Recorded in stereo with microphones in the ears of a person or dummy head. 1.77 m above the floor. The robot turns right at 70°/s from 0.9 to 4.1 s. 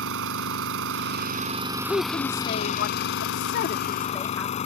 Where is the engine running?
80° right; by 4.7 s 145° left.